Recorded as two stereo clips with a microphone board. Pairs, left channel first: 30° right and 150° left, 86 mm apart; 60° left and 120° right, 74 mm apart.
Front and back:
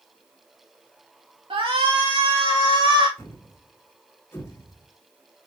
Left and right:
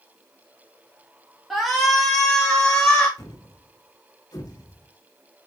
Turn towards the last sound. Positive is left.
turn(degrees=30)